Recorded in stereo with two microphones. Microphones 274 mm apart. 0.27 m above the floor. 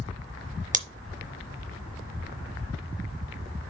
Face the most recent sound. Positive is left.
turn(degrees=-30)  # may be behind; listen again after turning